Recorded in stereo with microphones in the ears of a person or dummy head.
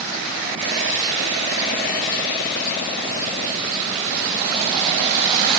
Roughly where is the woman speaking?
No woman speaking in this recording.